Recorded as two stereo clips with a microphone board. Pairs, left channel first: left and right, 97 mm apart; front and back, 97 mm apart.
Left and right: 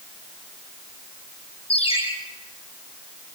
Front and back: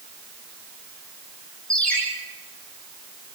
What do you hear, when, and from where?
1.7 s a ringtone: 80° left, 5 m